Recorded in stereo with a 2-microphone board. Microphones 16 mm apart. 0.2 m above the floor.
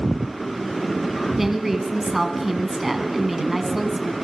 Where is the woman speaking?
15° right (ahead or behind), 2 m.